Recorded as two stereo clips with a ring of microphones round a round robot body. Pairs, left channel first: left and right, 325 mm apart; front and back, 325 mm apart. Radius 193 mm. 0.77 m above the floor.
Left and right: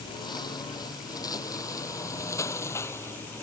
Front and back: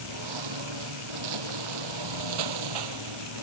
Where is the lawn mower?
165° left; by 3.4 s 175° left.